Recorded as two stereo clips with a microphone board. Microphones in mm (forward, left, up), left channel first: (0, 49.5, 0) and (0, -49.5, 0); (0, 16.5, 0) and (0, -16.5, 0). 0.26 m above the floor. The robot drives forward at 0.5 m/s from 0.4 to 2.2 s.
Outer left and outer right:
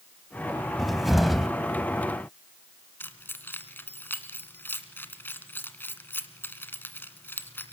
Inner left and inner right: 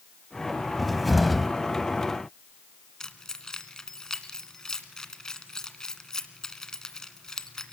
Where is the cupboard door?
Centre (ahead or behind), 1.0 m.